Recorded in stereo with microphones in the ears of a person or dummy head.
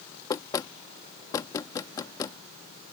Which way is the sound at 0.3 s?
15° left (ahead or behind).